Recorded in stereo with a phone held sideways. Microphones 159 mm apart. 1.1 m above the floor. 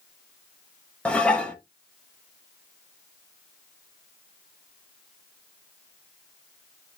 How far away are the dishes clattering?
About 0.6 m.